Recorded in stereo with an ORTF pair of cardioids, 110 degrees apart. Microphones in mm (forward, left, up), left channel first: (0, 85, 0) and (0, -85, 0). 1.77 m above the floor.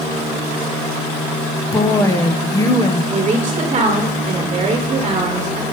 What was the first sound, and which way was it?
A woman speaking, 20° left.